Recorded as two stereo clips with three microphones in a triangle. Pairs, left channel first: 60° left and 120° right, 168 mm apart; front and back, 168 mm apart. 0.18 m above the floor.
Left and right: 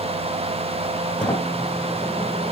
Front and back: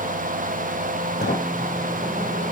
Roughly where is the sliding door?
Ahead.